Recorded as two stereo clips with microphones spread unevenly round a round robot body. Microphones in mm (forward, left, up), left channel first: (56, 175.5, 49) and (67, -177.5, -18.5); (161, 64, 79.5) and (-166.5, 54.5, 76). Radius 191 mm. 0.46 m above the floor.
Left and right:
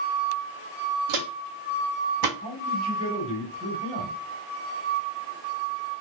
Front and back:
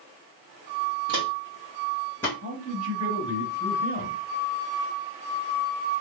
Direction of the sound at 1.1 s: 120° right.